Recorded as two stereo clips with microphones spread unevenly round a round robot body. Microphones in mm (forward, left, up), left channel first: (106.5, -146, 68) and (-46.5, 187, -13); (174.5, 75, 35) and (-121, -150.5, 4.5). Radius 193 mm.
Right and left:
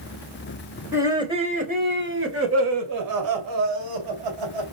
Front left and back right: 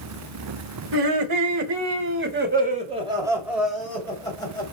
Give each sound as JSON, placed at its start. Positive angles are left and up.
{"t": 0.9, "sound": "laughter", "azimuth_deg": -165, "distance_m": 3.0}